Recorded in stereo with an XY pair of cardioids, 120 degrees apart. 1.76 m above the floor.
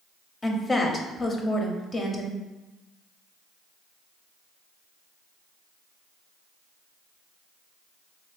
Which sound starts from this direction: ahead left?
A woman speaking, at 0.4 s.